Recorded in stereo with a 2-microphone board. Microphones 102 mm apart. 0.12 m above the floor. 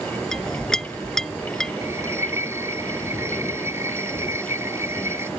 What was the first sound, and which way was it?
A clink, 5° left (ahead or behind).